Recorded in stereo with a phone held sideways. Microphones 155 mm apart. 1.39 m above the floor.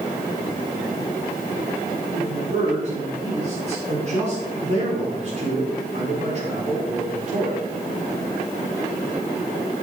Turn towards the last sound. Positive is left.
turn(degrees=-45)  # may be behind; listen again after turning